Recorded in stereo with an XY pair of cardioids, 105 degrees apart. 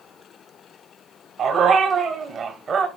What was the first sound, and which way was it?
A dog barking, 65° right.